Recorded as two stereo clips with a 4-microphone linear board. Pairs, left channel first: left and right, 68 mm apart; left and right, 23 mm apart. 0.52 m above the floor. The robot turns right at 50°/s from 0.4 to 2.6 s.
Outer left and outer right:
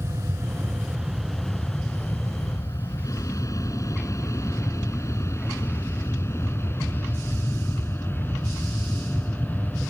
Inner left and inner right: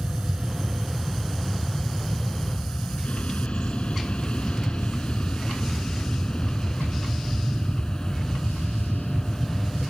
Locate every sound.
0.0 s an aircraft: 45° right (ahead or behind); by 9.9 s 25° left (ahead or behind)